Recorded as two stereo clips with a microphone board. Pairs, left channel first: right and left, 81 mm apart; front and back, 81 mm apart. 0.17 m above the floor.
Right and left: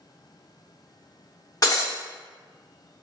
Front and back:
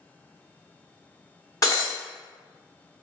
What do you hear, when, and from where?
1.6 s breaking glass: 45° right, 1.2 m